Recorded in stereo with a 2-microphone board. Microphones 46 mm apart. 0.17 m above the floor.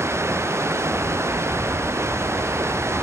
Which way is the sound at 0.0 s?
80° right.